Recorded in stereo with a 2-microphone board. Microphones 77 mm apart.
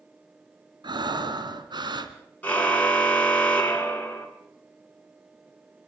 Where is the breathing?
80° right, 1.5 m.